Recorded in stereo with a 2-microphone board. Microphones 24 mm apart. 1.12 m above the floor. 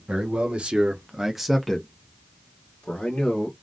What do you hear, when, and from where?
0.1 s a man speaking: 60° right (ahead or behind), 1.2 m; by 3.5 s 60° left (ahead or behind), 1.5 m